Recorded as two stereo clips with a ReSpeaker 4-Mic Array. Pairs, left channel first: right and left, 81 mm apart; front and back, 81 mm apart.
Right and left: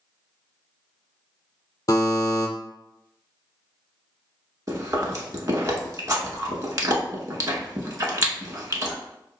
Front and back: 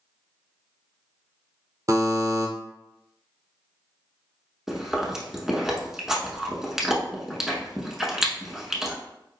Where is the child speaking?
I don't hear a child speaking.